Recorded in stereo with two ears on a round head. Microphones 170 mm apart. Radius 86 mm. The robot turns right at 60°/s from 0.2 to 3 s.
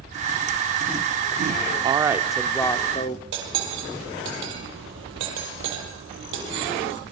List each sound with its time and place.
1.8 s a woman speaking: 30° right, 1.6 m; by 3.2 s 40° left, 1.6 m
3.3 s cutlery clinking: 75° right (ahead or behind), 9 m